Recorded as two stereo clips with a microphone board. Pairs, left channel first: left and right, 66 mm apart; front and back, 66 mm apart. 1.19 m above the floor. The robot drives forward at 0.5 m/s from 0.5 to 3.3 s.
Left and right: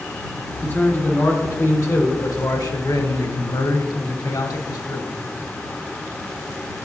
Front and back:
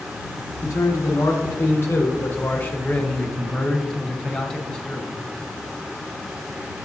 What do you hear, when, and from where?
0.6 s a man speaking: 35° left, 1.8 m; by 5.2 s 80° left, 1.0 m